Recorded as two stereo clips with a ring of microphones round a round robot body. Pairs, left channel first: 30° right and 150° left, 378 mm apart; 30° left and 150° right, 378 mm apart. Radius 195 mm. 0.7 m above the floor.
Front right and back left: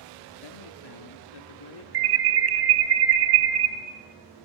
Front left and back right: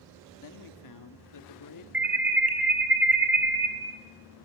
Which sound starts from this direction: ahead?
A man speaking, at 0.4 s.